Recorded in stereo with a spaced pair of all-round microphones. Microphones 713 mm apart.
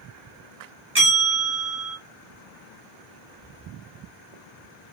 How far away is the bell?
About 1.4 m.